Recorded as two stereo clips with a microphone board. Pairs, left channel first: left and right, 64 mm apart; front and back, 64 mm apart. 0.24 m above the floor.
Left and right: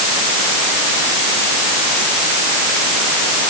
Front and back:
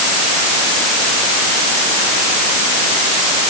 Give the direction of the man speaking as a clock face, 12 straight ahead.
I don't hear a man speaking.